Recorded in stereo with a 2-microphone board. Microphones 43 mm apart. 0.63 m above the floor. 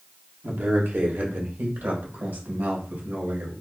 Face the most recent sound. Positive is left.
turn(degrees=-55)  # may be behind; listen again after turning